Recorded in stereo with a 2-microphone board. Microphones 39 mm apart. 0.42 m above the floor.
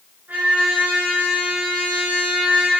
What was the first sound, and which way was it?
A trumpet, 65° right (ahead or behind).